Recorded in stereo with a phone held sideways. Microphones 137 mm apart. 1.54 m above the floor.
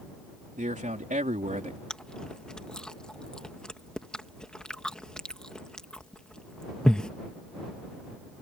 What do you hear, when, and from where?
0.6 s a man speaking: 70° right (ahead or behind)
1.9 s chewing: 5° left (ahead or behind)